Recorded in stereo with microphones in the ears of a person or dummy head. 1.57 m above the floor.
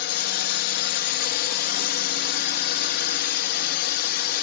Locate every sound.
0.0 s a drone: 50° left (ahead or behind)